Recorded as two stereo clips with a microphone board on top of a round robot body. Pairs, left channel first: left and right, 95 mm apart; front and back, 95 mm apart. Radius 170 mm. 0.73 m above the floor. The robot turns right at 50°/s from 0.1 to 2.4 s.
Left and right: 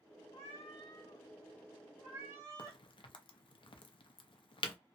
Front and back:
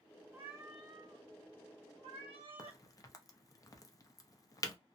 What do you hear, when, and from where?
0.3 s a cat meowing: 110° left, 1.0 m; by 2.8 s 150° right, 1.0 m
2.6 s a crack: 55° left, 0.6 m